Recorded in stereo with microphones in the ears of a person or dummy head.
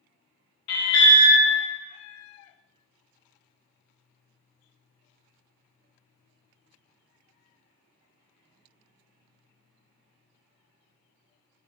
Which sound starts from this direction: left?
An alarm, at 0.7 s.